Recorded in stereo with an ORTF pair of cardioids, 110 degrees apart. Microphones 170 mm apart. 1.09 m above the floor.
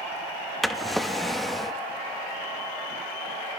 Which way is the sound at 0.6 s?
Straight ahead.